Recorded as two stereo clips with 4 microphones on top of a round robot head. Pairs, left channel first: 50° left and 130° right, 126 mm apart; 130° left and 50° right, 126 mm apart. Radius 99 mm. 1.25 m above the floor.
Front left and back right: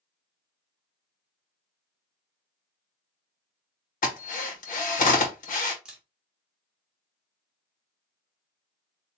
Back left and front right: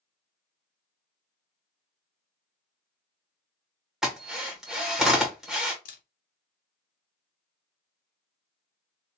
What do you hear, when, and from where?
4.0 s a drill: 40° left, 1.8 m
5.8 s a camera shutter: 145° left, 0.6 m